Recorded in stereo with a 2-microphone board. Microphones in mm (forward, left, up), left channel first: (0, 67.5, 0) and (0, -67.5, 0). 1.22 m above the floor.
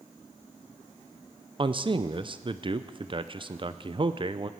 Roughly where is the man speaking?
Right.